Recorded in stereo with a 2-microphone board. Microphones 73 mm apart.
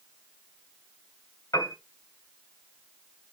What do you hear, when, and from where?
1.5 s a piano: 50° left (ahead or behind), 3 m